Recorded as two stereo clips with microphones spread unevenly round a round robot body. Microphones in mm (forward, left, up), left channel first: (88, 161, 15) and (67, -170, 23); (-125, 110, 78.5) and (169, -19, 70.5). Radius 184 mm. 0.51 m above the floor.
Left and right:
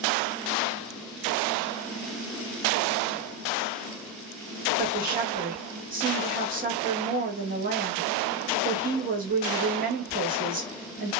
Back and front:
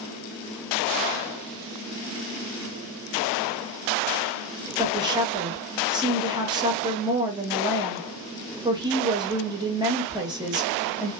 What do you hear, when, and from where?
4.8 s a woman speaking: 80° right, 0.9 m